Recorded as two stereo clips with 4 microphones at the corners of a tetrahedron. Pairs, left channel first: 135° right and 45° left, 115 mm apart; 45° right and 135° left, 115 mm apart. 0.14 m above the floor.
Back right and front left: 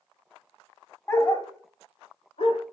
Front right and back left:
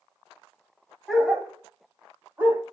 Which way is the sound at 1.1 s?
135° right.